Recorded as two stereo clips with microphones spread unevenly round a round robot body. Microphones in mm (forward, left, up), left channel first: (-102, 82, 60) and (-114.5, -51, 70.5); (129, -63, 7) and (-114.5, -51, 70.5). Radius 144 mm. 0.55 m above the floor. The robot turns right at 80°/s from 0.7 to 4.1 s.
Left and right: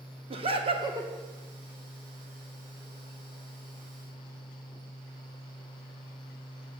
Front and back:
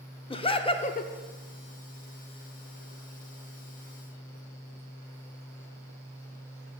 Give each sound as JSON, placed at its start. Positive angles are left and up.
{"t": 0.3, "sound": "laughter", "azimuth_deg": -50, "distance_m": 1.0}